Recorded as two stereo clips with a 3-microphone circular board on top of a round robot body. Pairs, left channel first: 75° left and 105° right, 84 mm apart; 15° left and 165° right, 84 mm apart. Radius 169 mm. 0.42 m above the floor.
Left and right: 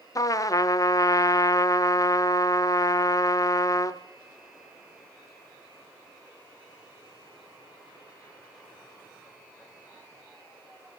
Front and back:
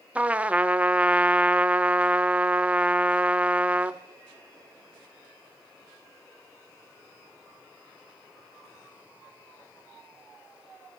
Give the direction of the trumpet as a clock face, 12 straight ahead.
8 o'clock.